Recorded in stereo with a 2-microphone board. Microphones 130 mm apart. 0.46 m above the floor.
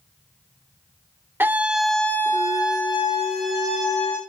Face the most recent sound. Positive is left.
turn(degrees=50)  # may be behind; listen again after turning